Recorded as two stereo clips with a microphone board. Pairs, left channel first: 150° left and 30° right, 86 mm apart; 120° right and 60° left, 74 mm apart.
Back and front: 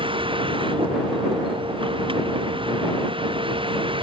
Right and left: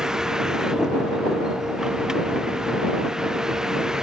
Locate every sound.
0.0 s a vehicle: 20° right